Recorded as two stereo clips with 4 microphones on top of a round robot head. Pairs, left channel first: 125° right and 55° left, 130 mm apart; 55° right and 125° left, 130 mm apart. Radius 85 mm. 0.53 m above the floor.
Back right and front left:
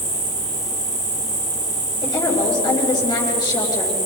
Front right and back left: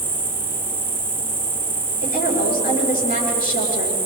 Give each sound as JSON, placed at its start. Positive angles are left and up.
{"t": 0.0, "sound": "an insect", "azimuth_deg": 50, "distance_m": 4.0}
{"t": 2.0, "sound": "a woman speaking", "azimuth_deg": -65, "distance_m": 9.0}